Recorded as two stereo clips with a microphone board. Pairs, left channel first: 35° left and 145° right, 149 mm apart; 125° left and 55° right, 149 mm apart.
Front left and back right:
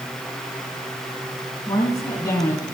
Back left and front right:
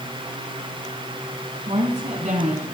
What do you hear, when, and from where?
1.7 s a woman speaking: 30° right, 3.5 m